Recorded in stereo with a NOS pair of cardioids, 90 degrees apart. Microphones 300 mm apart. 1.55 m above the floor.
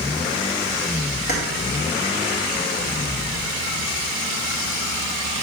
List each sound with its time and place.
1.3 s keys jangling: 35° left, 2.0 m